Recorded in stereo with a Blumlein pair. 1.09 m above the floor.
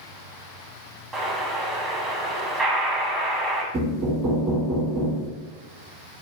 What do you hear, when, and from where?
1.1 s an explosion: 25° right, 0.9 m
3.7 s knocking: 30° right, 1.1 m